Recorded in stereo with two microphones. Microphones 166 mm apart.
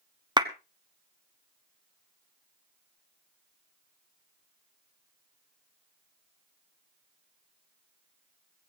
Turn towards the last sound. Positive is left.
turn(degrees=-25)  # may be behind; listen again after turning